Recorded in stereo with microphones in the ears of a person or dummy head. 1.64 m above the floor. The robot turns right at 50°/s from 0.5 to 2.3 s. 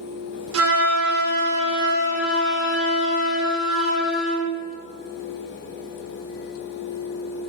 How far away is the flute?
About 0.8 m.